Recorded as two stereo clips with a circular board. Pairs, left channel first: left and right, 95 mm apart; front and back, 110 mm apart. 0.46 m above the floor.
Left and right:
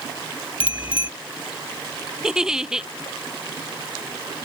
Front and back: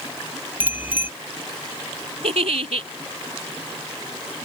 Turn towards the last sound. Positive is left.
turn(degrees=-175)